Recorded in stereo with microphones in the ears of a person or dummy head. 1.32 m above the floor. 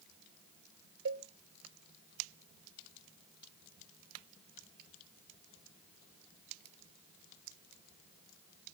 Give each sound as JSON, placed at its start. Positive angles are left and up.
{"t": 1.1, "sound": "a cowbell", "side_deg": -70, "distance_m": 0.8}